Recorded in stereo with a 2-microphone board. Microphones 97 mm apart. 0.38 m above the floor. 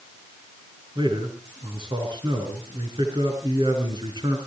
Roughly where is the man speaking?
Right.